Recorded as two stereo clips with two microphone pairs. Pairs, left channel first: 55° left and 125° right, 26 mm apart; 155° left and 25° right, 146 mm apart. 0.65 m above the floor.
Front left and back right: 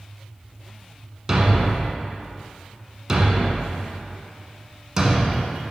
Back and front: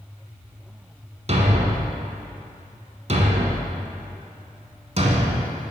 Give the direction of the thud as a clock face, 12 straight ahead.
2 o'clock.